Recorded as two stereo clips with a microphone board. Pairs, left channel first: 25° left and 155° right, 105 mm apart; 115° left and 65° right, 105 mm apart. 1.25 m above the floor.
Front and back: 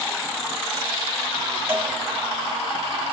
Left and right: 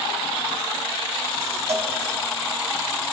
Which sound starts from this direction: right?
A cowbell, at 1.7 s.